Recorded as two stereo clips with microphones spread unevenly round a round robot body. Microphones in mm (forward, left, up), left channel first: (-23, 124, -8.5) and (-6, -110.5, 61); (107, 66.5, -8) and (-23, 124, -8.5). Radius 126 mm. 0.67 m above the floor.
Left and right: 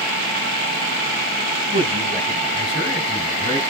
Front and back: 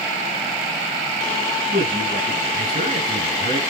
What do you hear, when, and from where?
1.7 s a man speaking: 150° right, 7 m; by 3.6 s 160° right, 6 m